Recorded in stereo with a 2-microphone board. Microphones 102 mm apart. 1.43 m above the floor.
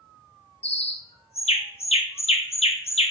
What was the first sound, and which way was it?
A bird, 80° left.